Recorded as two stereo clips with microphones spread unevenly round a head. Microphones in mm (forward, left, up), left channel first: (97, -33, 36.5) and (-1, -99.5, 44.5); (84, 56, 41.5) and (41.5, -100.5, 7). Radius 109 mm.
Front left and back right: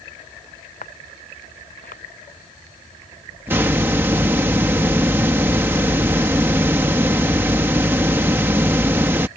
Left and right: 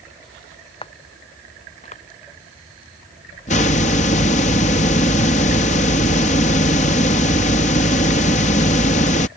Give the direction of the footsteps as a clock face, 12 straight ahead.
11 o'clock.